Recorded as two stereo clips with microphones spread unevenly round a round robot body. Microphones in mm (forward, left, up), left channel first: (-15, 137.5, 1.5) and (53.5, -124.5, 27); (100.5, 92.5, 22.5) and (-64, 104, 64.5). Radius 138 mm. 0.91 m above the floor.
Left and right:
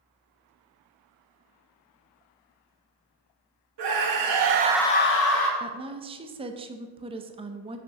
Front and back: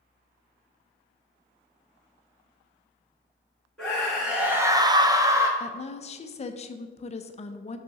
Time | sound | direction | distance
3.8 | a scream | 85° right | 1.6 m
5.6 | a woman speaking | 5° right | 0.5 m